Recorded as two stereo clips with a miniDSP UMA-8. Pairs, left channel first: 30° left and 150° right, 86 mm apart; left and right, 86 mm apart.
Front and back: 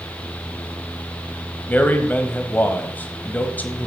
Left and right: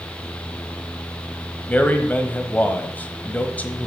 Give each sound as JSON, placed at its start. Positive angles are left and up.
{"t": 1.7, "sound": "a man speaking", "azimuth_deg": 55, "distance_m": 1.0}